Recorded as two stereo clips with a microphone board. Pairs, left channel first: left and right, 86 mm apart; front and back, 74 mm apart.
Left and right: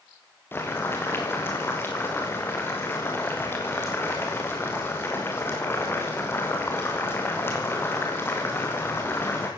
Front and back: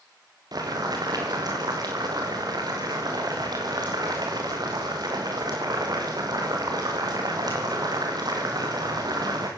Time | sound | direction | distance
0.5 | boiling | 155° left | 6.5 m